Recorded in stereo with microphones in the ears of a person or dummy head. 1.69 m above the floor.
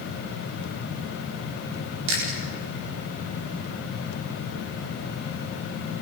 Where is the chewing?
85° right, 7 m.